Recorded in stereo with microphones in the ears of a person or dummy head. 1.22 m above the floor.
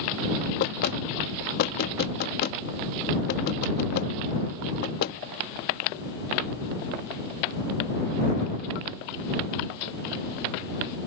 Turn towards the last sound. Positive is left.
turn(degrees=50)  # may be behind; listen again after turning